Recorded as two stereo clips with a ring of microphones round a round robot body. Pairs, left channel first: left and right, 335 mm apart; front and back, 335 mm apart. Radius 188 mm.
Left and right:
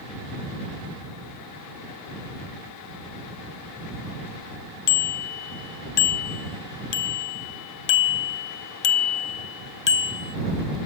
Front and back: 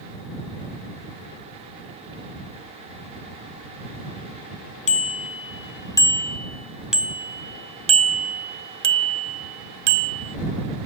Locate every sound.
4.9 s a bicycle bell: 70° left; by 10.4 s 150° left